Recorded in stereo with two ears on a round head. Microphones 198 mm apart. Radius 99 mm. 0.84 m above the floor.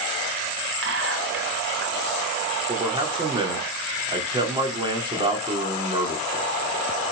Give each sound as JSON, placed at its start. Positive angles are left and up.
{"t": 0.8, "sound": "whispering", "side_deg": -60, "distance_m": 4.5}
{"t": 2.7, "sound": "a man speaking", "side_deg": -25, "distance_m": 2.5}